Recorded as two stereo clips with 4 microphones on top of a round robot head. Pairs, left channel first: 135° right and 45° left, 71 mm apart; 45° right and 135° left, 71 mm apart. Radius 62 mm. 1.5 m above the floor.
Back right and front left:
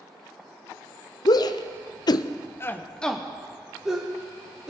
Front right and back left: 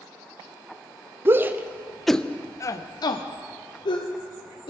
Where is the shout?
165° right, 0.8 m; by 4.7 s 30° right, 1.6 m.